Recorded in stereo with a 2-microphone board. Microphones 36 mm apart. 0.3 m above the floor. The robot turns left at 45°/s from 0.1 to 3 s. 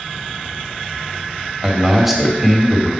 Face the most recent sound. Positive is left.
turn(degrees=155)